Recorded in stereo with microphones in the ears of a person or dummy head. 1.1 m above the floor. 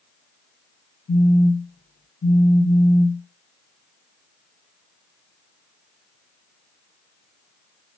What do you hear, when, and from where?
1.1 s a phone buzzing: 30° left (ahead or behind), 2 m